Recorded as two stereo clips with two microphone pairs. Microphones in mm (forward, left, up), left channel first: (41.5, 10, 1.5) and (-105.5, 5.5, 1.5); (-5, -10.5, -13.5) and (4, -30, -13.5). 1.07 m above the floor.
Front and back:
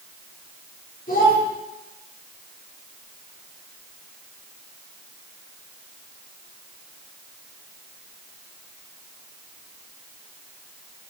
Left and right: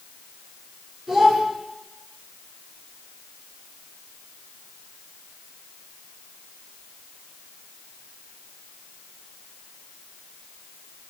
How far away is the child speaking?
About 2.5 m.